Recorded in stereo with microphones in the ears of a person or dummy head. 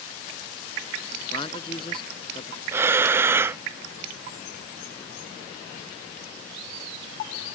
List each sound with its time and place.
1.3 s a man speaking: 35° left (ahead or behind)
2.7 s breathing: 15° right (ahead or behind)